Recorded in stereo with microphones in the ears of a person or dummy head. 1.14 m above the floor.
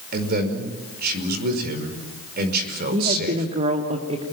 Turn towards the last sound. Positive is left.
turn(degrees=-30)  # may be behind; listen again after turning